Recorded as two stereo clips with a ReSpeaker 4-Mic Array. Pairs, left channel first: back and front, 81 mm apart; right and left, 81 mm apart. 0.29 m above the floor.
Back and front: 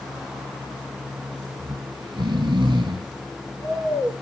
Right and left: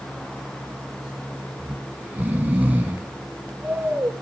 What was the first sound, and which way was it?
Snoring, 20° left.